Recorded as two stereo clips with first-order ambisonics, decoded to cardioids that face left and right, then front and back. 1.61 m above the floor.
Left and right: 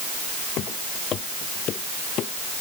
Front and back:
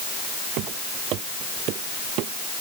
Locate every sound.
0.6 s footsteps: 145° left